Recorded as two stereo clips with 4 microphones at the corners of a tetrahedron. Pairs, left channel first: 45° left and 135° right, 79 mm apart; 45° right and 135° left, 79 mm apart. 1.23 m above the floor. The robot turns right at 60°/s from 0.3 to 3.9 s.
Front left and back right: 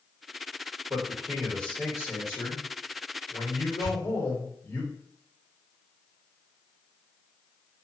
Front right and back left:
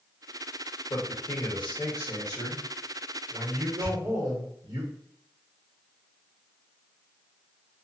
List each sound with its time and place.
0.9 s a man speaking: 80° right, 1.0 m; by 4.8 s 100° left, 1.0 m
3.8 s a pop: 170° right, 1.1 m; by 4.1 s 165° right, 1.1 m